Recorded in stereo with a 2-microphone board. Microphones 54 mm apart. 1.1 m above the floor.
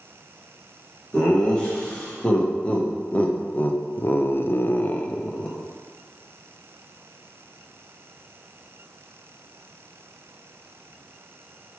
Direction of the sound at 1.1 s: 20° left (ahead or behind).